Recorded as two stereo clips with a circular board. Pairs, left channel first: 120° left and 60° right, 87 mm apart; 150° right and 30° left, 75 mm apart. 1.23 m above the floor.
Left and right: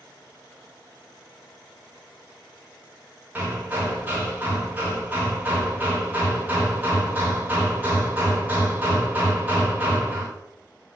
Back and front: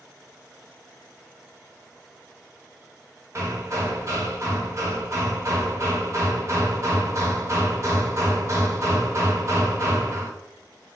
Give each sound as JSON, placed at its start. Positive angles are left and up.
{"t": 3.4, "sound": "hammering", "azimuth_deg": 0, "distance_m": 0.7}